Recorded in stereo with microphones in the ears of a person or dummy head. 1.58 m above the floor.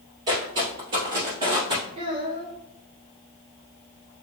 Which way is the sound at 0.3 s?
20° right (ahead or behind).